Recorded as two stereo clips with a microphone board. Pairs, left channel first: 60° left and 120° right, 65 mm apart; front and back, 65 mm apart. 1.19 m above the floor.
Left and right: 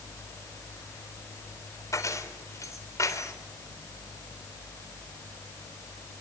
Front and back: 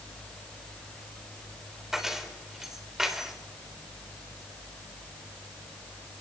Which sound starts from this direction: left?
Keys jangling, at 1.9 s.